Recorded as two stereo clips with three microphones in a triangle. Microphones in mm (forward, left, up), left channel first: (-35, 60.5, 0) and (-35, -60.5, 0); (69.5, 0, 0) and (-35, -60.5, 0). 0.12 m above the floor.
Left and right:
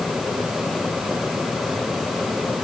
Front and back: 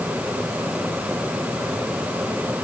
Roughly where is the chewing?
No chewing in this recording.